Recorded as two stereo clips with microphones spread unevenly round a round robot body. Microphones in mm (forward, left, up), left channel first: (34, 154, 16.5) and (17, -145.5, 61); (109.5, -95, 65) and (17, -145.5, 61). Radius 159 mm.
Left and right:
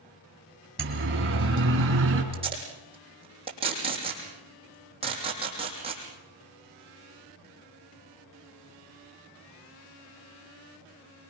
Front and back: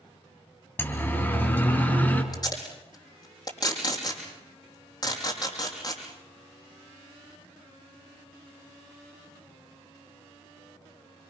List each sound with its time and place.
0.8 s a siren: 40° right, 3.5 m; by 2.2 s 45° right, 5 m
2.3 s tape being pulled: 20° right, 6 m